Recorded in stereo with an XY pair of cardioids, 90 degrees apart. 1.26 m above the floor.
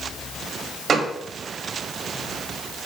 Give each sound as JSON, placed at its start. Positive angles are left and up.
{"t": 0.9, "sound": "a gunshot", "azimuth_deg": -55, "distance_m": 1.9}